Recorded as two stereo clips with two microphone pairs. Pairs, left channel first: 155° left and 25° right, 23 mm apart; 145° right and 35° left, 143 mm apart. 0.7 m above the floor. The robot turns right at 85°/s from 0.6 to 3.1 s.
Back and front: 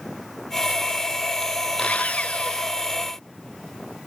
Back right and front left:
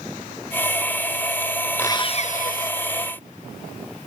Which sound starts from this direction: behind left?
Sawing, at 1.8 s.